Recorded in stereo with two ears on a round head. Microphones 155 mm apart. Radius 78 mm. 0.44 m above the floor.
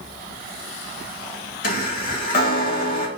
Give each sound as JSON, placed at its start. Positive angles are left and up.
{"t": 1.6, "sound": "a chime", "side_deg": 50, "distance_m": 0.7}